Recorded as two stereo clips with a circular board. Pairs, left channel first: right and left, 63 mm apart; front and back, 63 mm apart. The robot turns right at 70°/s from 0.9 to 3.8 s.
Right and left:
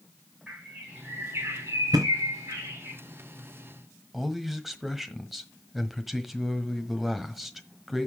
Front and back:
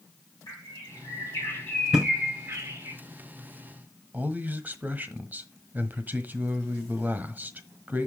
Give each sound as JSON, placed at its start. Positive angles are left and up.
{"t": 0.5, "sound": "a bird", "azimuth_deg": 10, "distance_m": 6.5}
{"t": 1.9, "sound": "a thud", "azimuth_deg": 95, "distance_m": 2.5}
{"t": 4.1, "sound": "a man speaking", "azimuth_deg": 170, "distance_m": 1.4}